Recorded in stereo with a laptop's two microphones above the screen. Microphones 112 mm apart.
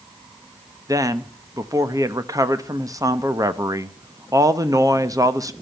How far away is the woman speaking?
About 0.8 m.